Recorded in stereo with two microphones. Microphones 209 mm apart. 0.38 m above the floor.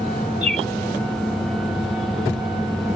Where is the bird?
30° right (ahead or behind).